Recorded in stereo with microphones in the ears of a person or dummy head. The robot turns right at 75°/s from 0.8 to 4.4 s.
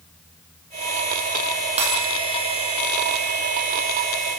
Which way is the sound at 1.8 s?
30° right (ahead or behind).